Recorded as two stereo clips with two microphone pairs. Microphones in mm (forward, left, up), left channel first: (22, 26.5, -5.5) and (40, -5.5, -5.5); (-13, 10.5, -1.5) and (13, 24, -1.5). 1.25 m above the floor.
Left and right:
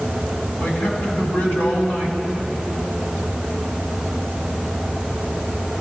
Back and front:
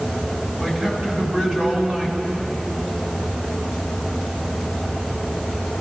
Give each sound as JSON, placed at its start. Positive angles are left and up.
{"t": 0.6, "sound": "a man speaking", "azimuth_deg": 120, "distance_m": 6.0}